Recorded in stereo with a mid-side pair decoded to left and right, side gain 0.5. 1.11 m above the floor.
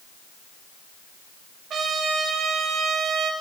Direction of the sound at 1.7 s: 60° right.